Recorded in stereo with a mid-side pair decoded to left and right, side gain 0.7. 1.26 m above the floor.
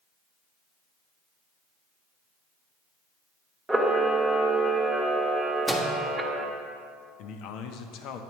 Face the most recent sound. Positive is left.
turn(degrees=60)